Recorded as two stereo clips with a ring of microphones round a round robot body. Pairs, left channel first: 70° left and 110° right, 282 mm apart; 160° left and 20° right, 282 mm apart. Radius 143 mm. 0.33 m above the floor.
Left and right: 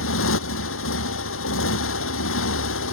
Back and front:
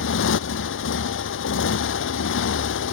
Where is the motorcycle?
110° left.